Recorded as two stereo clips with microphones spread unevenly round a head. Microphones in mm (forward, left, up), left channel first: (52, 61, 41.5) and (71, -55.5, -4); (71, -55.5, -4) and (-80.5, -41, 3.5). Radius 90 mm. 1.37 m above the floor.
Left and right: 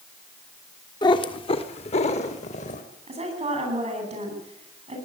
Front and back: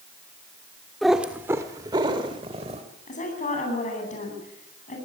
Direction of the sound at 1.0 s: 85° left.